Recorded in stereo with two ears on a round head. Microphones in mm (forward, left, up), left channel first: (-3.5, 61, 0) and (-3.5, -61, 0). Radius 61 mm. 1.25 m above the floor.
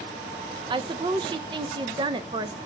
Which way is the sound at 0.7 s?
35° right (ahead or behind).